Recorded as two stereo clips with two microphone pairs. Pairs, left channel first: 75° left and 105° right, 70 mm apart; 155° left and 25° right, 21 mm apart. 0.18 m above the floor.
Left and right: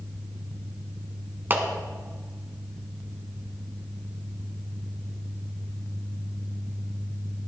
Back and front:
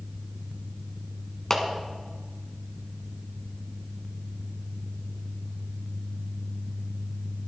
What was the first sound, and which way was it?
A clap, 150° right.